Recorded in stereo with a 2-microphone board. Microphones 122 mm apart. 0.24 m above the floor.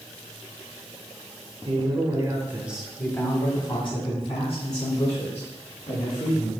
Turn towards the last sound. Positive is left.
turn(degrees=70)  # may be behind; listen again after turning